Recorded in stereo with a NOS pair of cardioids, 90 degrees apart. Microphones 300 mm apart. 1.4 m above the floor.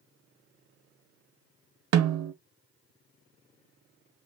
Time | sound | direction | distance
1.9 | a snare drum | 60° right | 0.7 m